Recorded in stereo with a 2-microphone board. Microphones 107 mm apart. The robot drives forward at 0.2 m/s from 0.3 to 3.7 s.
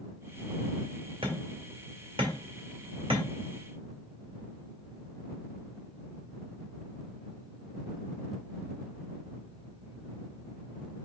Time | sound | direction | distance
1.2 | hammering | 55° right (ahead or behind) | 1.5 m